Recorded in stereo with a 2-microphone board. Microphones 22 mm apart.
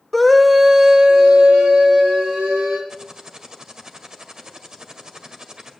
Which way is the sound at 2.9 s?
30° right (ahead or behind).